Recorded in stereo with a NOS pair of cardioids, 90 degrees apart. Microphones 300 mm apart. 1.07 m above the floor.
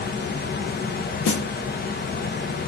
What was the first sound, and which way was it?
A fan, 35° left.